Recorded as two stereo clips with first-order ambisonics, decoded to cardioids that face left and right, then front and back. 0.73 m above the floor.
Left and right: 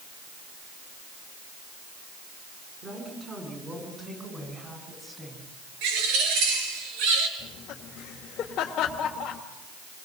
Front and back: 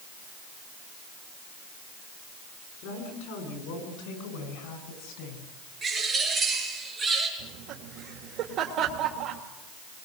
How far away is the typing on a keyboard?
I don't hear typing on a keyboard.